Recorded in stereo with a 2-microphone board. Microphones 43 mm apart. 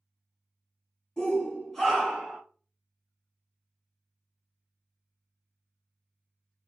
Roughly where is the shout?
Left.